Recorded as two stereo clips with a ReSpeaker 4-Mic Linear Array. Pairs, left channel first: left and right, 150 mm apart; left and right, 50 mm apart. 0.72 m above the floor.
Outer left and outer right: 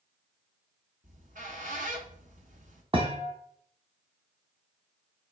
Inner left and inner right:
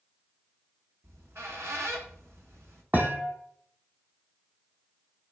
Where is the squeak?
60° right (ahead or behind), 1.3 m.